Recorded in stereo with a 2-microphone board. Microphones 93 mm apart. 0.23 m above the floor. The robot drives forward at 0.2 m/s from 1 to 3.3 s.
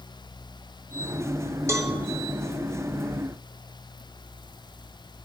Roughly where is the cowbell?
Right.